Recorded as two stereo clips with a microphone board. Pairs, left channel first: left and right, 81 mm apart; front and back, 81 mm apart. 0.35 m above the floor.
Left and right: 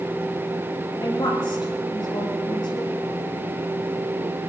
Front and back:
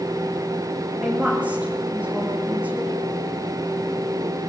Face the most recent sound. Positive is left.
turn(degrees=105)